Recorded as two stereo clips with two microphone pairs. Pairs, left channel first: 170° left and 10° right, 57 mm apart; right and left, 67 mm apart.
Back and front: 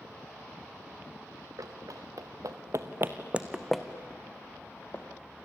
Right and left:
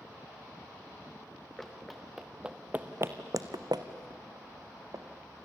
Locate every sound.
1.6 s running footsteps: 5° right, 2.5 m; by 5.0 s 120° left, 2.5 m